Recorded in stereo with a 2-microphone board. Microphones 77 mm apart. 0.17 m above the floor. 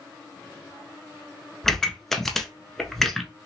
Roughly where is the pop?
Centre.